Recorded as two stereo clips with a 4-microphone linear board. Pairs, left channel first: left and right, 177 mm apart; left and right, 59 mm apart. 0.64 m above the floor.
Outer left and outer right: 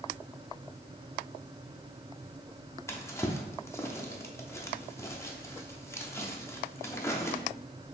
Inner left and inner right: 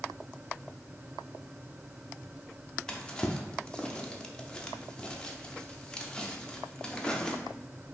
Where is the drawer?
15° left (ahead or behind), 0.5 m.